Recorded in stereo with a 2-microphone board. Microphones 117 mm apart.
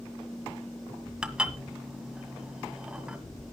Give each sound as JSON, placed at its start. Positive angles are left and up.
{"t": 1.2, "sound": "dishes clattering", "side_deg": -10, "distance_m": 1.6}